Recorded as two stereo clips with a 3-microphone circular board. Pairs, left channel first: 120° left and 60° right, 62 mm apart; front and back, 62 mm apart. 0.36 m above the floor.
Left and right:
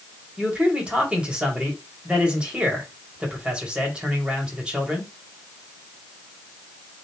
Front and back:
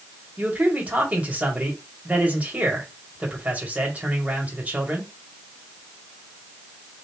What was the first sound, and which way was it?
A man speaking, 125° right.